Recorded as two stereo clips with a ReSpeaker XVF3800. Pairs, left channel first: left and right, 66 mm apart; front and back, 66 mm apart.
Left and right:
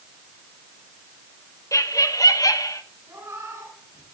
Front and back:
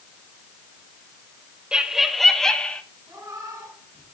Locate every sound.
1.7 s laughter: 110° left, 1.3 m; by 2.8 s 75° left, 1.9 m
3.1 s a cat meowing: 140° right, 5 m